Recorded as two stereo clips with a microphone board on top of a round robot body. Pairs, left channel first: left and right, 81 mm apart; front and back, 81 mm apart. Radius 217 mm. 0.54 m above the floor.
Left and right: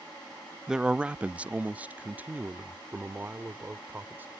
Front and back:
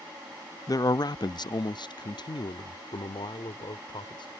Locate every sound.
0.7 s a man speaking: 10° right; by 4.3 s 20° right